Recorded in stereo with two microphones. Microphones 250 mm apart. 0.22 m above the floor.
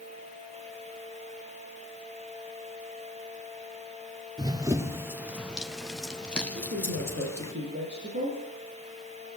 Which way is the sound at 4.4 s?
15° right (ahead or behind).